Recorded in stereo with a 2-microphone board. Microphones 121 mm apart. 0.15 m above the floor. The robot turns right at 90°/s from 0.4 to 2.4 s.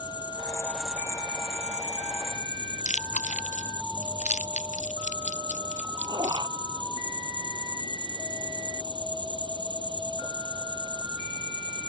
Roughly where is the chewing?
Left.